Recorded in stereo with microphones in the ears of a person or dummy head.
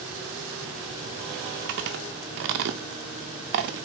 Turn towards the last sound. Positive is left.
turn(degrees=-45)  # may be behind; listen again after turning